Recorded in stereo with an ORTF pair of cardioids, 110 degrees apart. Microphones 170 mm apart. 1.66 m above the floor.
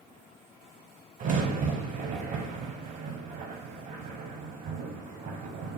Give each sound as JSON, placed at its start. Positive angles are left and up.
{"t": 1.2, "sound": "a crack", "azimuth_deg": -50, "distance_m": 0.9}